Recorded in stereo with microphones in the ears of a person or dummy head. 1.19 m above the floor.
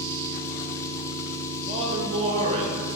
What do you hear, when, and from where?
0.0 s an engine running: 15° left (ahead or behind), 0.9 m
1.7 s a man speaking: 35° right (ahead or behind), 1.5 m